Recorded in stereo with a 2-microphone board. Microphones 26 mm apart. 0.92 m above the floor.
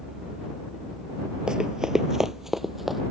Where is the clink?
No clink in this recording.